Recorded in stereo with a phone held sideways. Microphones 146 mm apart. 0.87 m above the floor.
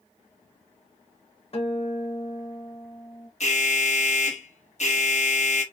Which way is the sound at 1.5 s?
45° left (ahead or behind).